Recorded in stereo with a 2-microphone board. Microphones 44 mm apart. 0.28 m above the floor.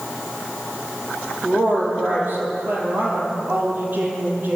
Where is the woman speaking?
45° right (ahead or behind), 9 m.